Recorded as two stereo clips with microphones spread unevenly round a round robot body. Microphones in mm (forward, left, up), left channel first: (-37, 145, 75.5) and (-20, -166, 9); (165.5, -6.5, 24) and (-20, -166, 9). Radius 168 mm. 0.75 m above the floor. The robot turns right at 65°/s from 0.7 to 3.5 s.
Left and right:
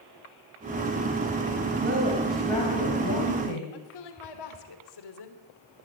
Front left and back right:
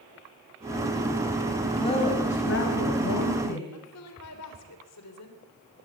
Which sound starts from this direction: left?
A woman speaking, at 3.7 s.